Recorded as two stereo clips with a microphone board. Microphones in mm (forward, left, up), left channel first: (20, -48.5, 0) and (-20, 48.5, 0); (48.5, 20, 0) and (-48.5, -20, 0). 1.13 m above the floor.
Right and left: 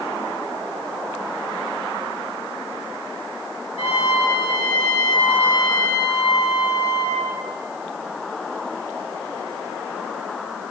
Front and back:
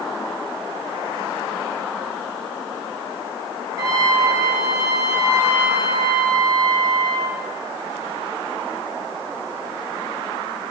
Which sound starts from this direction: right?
A trumpet, at 3.8 s.